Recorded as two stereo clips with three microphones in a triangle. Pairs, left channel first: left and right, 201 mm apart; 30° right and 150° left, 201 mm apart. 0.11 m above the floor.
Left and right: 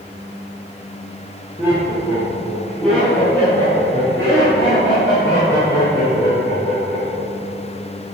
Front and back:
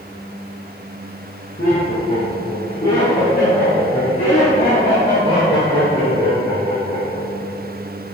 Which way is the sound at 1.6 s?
15° right.